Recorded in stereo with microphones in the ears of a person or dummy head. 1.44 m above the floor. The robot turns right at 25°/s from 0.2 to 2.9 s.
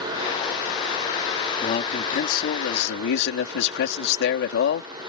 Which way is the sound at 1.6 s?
35° left.